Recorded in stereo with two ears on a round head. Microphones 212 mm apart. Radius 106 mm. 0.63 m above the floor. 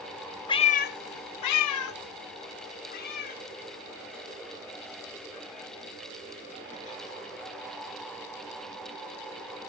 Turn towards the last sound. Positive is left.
turn(degrees=30)  # may be behind; listen again after turning